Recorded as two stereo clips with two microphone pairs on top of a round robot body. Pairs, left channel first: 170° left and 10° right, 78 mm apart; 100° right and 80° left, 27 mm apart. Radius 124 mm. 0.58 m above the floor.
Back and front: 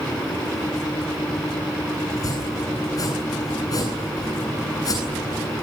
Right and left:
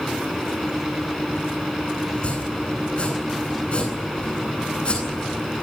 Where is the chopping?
145° right, 9.5 m.